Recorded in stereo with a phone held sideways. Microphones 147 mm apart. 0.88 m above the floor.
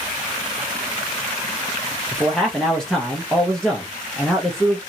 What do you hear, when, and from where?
2.1 s a man speaking: 5° left (ahead or behind), 0.7 m